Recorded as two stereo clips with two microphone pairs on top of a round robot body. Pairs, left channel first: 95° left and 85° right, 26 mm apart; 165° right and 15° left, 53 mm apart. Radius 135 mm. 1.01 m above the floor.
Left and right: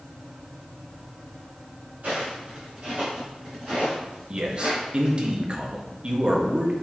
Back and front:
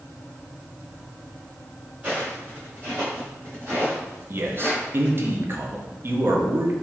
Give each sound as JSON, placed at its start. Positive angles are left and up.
{"t": 2.0, "sound": "footsteps", "azimuth_deg": -45, "distance_m": 2.0}
{"t": 4.3, "sound": "a man speaking", "azimuth_deg": -35, "distance_m": 0.9}